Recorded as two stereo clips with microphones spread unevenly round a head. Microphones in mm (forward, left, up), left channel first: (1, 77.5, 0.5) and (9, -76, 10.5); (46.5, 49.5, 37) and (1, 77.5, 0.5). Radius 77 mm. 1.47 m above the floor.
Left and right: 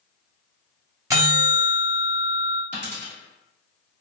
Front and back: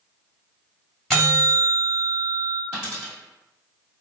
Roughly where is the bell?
Ahead right.